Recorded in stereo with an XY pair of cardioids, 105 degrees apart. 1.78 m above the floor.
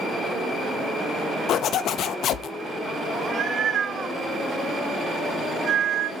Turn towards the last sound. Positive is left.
turn(degrees=-45)